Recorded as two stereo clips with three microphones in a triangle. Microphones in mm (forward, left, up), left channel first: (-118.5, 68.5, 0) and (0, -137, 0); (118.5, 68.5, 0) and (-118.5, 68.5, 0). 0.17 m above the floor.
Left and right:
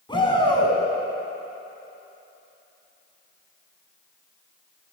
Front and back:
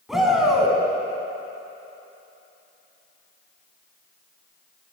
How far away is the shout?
About 1.5 m.